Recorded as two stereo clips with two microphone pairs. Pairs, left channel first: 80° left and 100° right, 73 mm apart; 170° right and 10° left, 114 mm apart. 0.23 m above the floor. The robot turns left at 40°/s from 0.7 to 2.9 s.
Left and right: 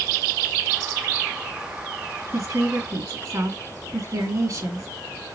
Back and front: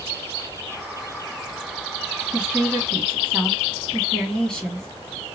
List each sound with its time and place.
2.3 s a woman speaking: 70° right, 2.5 m; by 4.9 s 90° right, 2.5 m